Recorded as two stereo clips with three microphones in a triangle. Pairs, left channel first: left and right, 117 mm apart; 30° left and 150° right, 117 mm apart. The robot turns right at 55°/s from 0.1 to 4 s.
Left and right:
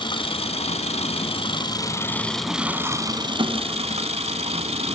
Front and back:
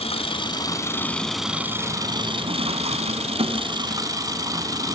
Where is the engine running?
50° left, 1.4 m; by 5.0 s 95° right, 1.4 m.